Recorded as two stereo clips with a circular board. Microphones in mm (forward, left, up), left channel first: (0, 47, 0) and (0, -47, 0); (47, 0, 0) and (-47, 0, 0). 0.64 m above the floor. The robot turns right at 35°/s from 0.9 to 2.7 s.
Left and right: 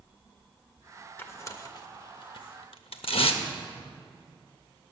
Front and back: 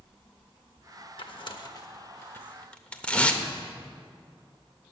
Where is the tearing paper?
25° left, 0.7 m; by 3.4 s 75° left, 0.7 m.